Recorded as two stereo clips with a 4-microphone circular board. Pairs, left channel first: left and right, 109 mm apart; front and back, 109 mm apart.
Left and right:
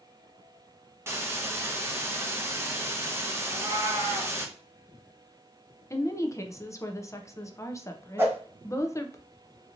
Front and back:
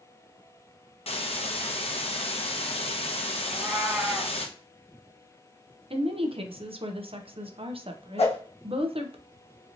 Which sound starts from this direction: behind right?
A cat meowing, at 3.5 s.